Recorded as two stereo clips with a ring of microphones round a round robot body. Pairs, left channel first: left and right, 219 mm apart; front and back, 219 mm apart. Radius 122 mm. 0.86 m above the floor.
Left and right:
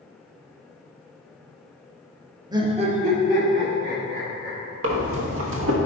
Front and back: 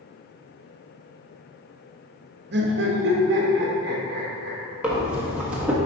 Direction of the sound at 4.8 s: 95° right.